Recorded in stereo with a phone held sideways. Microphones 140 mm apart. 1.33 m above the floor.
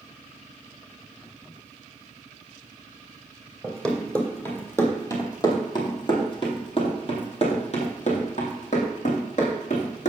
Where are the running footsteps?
5° left (ahead or behind), 2.5 m; by 10.1 s 60° left (ahead or behind), 3 m.